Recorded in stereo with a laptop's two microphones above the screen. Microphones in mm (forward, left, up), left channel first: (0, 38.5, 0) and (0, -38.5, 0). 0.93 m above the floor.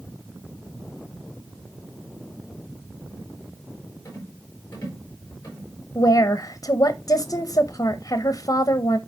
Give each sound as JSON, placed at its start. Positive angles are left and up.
{"t": 4.0, "sound": "a rattle", "side_deg": 30, "distance_m": 4.0}
{"t": 6.0, "sound": "a woman speaking", "side_deg": 50, "distance_m": 0.6}